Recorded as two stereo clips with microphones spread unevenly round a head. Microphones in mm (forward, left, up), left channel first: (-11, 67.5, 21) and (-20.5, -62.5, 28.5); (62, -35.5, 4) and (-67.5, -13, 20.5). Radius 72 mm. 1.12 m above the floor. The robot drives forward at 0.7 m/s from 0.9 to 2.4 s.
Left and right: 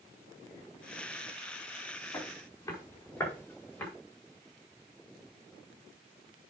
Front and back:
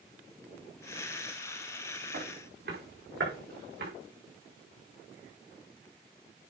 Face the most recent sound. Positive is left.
turn(degrees=165)